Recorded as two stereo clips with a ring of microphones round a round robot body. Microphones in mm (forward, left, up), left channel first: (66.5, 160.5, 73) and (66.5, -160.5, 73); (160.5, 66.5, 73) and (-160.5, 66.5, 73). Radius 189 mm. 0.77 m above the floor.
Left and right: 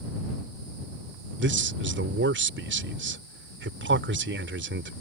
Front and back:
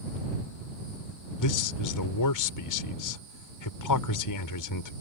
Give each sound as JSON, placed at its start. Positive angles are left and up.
{"t": 1.4, "sound": "a man speaking", "azimuth_deg": -35}